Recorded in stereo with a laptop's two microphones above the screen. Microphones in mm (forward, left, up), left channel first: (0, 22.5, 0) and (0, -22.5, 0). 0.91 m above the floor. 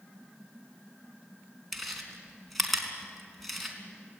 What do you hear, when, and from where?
1.7 s chewing: centre (ahead or behind), 4 m